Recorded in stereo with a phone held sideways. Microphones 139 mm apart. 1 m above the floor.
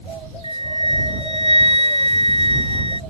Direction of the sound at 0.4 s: 50° right (ahead or behind).